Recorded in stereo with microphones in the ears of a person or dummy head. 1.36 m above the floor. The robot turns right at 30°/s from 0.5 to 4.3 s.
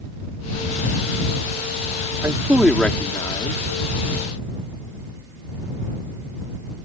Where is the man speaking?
10° right; by 3.6 s 30° left.